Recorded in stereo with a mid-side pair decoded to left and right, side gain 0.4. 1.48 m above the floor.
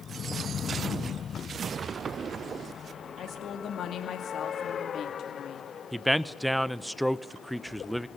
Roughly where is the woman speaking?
Ahead left.